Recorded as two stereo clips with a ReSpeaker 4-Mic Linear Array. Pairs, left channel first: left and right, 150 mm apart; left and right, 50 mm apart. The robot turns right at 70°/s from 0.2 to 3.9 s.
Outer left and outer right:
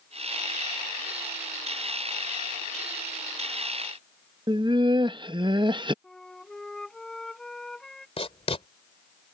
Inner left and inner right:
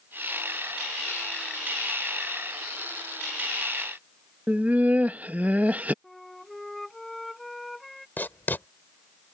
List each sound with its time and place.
4.5 s laughter: 30° right (ahead or behind)
6.0 s a flute: 5° left (ahead or behind)
8.2 s writing: 40° left (ahead or behind)